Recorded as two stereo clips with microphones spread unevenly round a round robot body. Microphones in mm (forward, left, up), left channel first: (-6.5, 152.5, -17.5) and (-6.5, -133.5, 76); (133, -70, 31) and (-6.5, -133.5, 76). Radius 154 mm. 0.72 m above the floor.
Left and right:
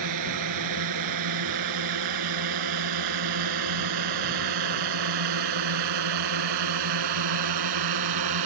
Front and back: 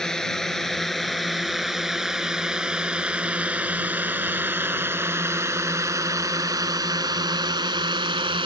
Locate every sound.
0.0 s a drone: 65° right; by 8.5 s 100° right